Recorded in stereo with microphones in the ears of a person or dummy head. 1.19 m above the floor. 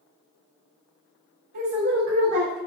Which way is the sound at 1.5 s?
40° right (ahead or behind).